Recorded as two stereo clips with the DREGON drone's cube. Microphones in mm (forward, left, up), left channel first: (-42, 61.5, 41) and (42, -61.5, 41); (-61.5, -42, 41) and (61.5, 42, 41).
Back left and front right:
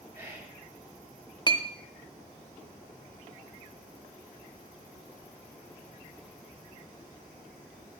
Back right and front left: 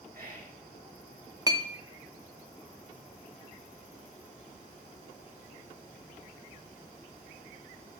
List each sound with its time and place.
0.1 s whispering: 10° left, 3 m
1.5 s a clink: 85° left, 0.7 m